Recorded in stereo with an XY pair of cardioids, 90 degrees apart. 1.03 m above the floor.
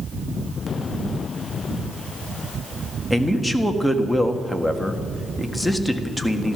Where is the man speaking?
10° left, 1.7 m.